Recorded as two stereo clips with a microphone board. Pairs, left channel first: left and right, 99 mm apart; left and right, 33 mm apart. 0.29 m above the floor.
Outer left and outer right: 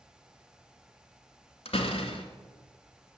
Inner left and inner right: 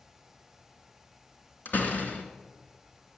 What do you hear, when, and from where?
1.6 s a door slam: 75° left (ahead or behind), 2 m